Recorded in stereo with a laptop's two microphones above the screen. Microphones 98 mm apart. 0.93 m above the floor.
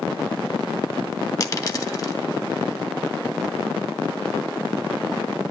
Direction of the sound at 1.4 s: 35° left (ahead or behind).